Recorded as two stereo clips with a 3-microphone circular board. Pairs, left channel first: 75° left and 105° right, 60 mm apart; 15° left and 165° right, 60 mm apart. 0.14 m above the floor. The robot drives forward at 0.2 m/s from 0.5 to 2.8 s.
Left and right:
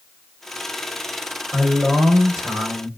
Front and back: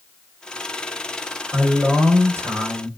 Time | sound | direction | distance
1.5 | a man speaking | 175° right | 1.4 m